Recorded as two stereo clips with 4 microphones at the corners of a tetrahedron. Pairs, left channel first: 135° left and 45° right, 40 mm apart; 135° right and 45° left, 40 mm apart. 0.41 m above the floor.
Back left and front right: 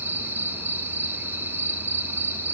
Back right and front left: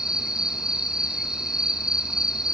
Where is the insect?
30° right, 1.2 m.